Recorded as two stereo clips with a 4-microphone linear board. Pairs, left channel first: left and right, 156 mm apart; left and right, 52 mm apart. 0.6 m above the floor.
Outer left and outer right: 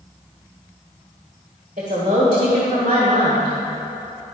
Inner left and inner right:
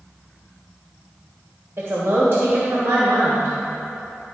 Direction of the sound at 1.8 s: 55° right (ahead or behind).